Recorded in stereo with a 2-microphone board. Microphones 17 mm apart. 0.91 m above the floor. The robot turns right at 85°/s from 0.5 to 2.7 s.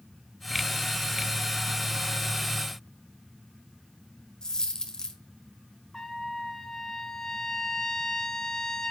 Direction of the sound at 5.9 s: 30° left (ahead or behind).